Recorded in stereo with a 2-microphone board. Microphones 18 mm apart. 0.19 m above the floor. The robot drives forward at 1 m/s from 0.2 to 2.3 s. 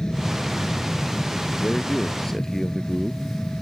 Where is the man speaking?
30° left (ahead or behind); by 3.2 s 25° left (ahead or behind).